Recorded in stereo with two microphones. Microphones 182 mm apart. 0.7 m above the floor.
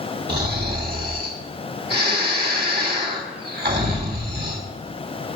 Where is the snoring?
65° right (ahead or behind), 3 m.